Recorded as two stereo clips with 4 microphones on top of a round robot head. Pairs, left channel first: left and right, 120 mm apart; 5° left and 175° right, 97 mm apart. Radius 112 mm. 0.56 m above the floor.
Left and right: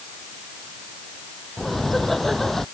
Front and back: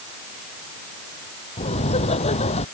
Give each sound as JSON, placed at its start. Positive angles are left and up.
{"t": 1.6, "sound": "laughter", "azimuth_deg": 0}